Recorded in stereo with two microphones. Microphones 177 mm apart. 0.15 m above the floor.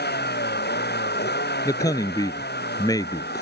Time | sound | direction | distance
0.0 | a vehicle | 70° left (ahead or behind) | ?
1.6 | a man speaking | 20° left (ahead or behind) | ?